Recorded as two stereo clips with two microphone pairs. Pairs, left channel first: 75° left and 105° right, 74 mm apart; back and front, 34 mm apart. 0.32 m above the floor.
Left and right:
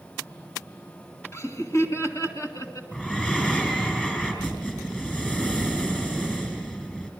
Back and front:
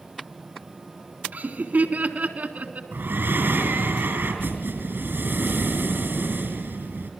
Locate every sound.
1.3 s laughter: 30° left, 3.5 m; by 2.8 s 35° left, 4 m
2.9 s breathing: straight ahead, 5.5 m